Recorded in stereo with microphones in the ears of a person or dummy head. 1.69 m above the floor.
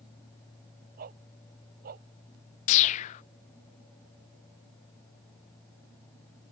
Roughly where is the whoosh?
Left.